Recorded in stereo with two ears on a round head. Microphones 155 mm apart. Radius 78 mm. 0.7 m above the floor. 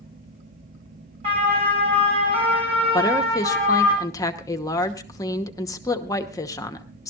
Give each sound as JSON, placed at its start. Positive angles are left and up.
{"t": 1.2, "sound": "a siren", "side_deg": -35, "distance_m": 6.5}
{"t": 2.9, "sound": "a woman speaking", "side_deg": 20, "distance_m": 1.0}